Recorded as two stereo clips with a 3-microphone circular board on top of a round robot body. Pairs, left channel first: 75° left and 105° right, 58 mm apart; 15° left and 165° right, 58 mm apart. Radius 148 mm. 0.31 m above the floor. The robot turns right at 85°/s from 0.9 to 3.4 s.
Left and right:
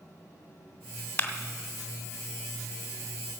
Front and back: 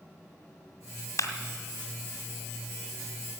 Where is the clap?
15° left, 1.9 m; by 1.3 s 25° left, 1.9 m.